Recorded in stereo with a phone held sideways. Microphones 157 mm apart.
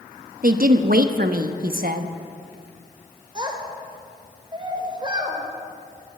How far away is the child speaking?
About 3.5 m.